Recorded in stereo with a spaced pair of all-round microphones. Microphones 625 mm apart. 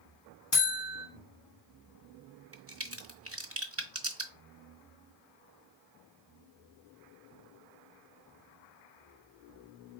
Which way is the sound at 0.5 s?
40° left (ahead or behind).